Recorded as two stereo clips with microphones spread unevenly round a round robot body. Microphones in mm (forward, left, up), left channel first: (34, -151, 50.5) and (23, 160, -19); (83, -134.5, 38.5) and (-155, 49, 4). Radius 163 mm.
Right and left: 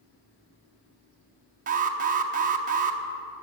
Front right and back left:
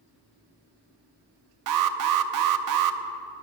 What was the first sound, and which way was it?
An alarm, 155° left.